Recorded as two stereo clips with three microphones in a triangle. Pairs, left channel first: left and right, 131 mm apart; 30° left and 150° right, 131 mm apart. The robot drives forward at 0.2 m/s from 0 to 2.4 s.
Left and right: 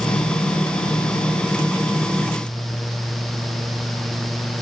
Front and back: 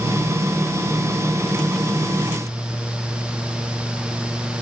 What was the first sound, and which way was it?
Only background noise.